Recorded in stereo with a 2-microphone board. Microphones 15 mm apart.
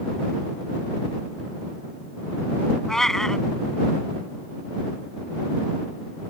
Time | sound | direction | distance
2.9 | a cat meowing | 35° left (ahead or behind) | ?